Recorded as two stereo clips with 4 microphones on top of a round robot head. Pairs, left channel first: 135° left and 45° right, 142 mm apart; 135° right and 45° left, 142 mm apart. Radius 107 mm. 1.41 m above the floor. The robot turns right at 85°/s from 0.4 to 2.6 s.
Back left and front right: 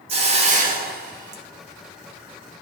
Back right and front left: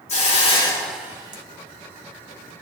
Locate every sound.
0.1 s a hiss: 90° right, 1.6 m; by 1.4 s 5° right, 1.6 m